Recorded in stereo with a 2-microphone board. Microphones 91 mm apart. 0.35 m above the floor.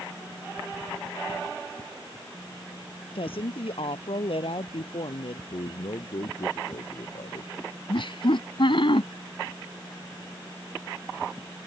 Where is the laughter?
65° left (ahead or behind).